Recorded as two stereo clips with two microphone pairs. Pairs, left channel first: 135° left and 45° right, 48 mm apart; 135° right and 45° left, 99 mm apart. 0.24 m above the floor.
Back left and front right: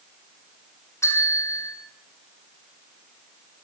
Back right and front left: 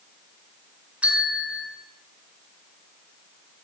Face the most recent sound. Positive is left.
turn(degrees=120)